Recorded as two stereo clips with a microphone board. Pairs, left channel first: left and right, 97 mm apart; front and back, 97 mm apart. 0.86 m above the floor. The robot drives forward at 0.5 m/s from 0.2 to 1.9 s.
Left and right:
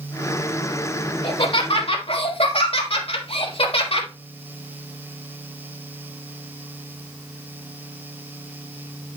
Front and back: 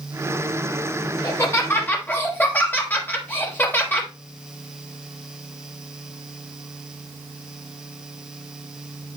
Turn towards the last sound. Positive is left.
turn(degrees=70)